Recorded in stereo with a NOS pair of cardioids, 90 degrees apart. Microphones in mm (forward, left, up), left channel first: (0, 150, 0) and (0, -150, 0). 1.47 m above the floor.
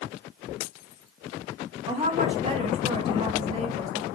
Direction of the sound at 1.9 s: 20° right.